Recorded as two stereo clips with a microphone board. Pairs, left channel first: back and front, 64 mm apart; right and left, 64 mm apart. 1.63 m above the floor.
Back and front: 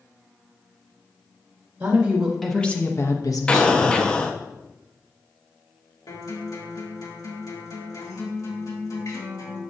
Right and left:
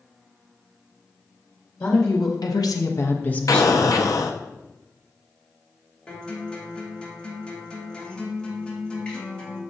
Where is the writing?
No writing in this recording.